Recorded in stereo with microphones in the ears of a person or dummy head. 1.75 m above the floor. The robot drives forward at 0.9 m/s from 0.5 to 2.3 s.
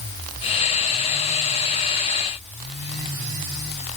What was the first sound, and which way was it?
Only background noise.